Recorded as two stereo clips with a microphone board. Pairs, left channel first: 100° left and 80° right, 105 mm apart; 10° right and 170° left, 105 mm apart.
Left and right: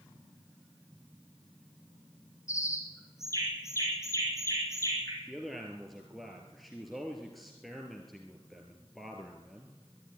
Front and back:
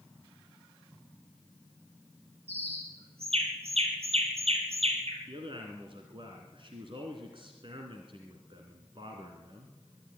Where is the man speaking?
170° right, 2.5 m.